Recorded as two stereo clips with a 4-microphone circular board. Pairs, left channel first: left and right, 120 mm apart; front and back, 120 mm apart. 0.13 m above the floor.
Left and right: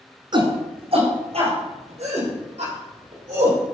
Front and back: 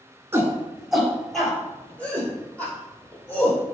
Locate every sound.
0.3 s a shout: 115° right, 2 m; by 3.6 s 70° right, 6 m